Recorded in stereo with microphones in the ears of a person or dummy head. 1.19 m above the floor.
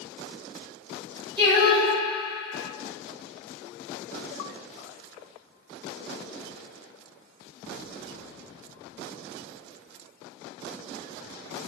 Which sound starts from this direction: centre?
Singing, at 1.4 s.